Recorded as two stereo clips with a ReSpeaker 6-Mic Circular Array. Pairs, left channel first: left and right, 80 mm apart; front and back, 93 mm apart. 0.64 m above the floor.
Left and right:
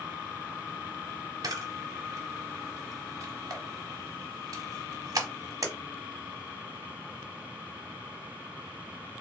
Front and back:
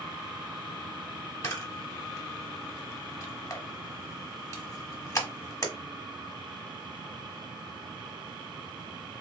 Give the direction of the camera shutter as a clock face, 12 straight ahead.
2 o'clock.